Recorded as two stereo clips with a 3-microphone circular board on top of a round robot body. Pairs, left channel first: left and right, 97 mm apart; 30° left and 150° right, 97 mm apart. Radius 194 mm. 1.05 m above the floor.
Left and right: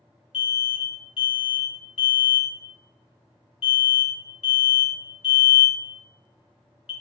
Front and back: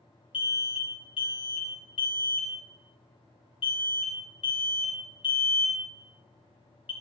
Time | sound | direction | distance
0.3 | an alarm | 65° left | 0.5 m